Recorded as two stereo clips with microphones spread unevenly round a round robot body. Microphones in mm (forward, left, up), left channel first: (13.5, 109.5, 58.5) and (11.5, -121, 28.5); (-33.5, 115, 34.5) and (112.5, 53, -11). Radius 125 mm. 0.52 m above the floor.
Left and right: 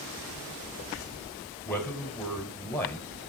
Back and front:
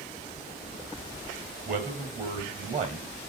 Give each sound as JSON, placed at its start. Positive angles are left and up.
{"t": 1.6, "sound": "a man speaking", "azimuth_deg": 5, "distance_m": 2.0}